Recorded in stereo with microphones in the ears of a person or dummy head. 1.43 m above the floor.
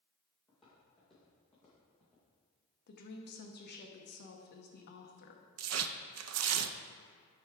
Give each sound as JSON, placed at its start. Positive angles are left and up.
{"t": 0.5, "sound": "footsteps", "side_deg": 0, "distance_m": 2.0}
{"t": 2.9, "sound": "a woman speaking", "side_deg": 55, "distance_m": 0.9}
{"t": 5.6, "sound": "tearing paper", "side_deg": -80, "distance_m": 0.5}